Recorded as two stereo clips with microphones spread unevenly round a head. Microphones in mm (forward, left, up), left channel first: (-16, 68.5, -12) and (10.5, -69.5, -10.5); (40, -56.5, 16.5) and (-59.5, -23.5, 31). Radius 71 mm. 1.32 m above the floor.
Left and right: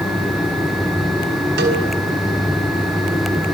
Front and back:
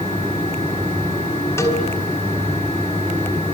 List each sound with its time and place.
1.6 s a cowbell: 85° right, 5 m